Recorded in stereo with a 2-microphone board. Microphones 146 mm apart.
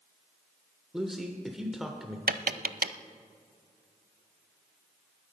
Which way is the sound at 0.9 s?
Centre (ahead or behind).